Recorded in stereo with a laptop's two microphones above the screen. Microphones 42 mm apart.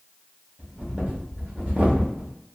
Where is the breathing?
30° right (ahead or behind), 0.7 m.